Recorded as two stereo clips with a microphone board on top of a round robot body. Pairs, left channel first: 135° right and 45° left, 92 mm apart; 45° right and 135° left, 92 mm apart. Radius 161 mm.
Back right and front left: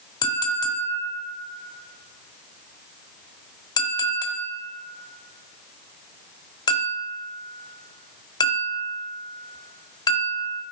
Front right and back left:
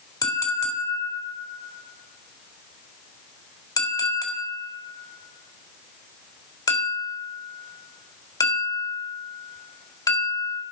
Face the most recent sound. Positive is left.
turn(degrees=-90)